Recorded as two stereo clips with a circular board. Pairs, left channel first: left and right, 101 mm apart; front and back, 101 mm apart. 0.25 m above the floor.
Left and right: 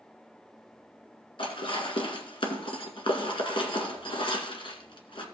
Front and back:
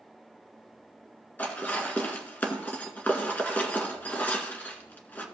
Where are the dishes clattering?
70° left, 1.8 m.